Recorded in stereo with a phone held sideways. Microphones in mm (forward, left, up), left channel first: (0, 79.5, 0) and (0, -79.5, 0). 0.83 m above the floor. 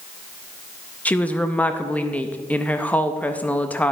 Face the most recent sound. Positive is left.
turn(degrees=10)  # may be behind; listen again after turning